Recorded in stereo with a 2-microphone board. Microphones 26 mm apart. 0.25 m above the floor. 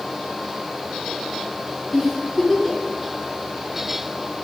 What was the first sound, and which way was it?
A giggle, 5° right (ahead or behind).